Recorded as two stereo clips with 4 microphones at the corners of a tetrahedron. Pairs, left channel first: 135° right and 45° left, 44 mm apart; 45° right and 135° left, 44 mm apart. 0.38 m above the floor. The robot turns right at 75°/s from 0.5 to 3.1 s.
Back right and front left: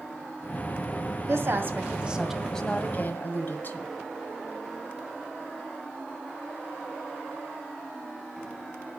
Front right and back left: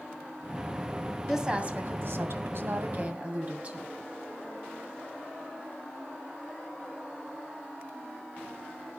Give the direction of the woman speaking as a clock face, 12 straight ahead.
10 o'clock.